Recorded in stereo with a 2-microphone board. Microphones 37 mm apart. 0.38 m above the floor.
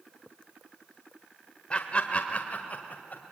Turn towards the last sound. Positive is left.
turn(degrees=50)  # may be behind; listen again after turning